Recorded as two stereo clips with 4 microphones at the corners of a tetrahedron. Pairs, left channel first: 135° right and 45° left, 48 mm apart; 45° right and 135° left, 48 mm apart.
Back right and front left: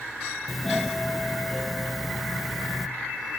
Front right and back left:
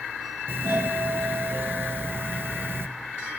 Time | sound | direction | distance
0.5 | a doorbell | 130° left | 1.2 m